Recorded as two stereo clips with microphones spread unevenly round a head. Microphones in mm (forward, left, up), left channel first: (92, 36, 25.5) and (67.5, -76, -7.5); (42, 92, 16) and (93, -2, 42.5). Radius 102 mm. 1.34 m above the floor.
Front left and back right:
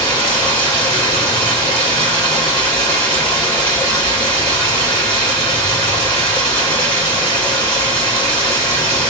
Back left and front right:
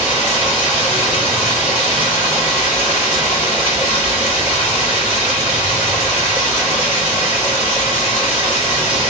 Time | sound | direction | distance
0.0 | running water | 170° left | 1.6 m